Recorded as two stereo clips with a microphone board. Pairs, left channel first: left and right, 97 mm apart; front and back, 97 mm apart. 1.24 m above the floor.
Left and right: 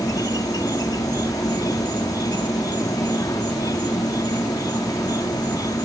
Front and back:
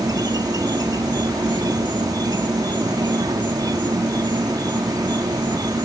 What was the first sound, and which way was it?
An insect, 135° left.